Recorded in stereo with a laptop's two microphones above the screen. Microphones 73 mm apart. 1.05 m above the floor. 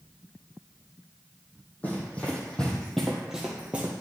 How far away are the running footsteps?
About 2 m.